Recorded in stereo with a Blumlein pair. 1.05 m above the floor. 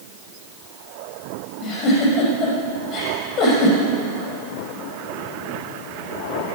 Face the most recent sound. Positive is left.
turn(degrees=35)